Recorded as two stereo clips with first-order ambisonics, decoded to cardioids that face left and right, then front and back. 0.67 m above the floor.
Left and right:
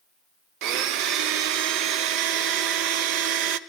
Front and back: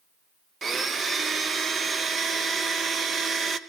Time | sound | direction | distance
0.6 | a blender | 110° right | 0.6 m